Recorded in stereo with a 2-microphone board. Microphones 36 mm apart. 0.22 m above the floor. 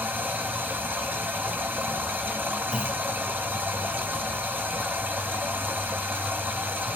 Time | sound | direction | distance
0.0 | running water | 85° right | 1.1 m
2.7 | a clunk | 45° right (ahead or behind) | 1.4 m